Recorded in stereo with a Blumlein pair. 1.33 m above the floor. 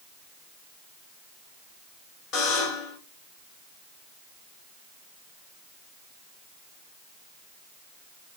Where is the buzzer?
30° left, 3.5 m.